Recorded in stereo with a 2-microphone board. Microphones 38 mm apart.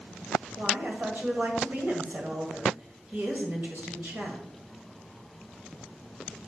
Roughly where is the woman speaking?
Right.